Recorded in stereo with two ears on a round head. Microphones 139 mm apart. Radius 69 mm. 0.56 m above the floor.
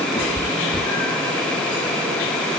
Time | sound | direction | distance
0.1 | a cat meowing | 20° left (ahead or behind) | 4 m